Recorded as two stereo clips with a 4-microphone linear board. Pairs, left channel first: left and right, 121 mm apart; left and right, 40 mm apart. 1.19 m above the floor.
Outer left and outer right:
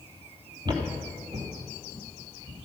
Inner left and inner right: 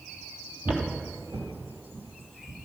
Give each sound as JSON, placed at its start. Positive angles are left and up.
{"t": 0.7, "sound": "footsteps", "side_deg": -35, "distance_m": 1.5}